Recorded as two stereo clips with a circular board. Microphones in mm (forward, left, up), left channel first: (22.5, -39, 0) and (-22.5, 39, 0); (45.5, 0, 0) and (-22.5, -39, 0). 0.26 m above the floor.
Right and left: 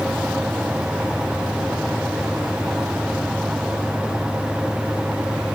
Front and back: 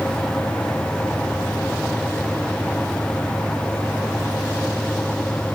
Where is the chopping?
No chopping in this recording.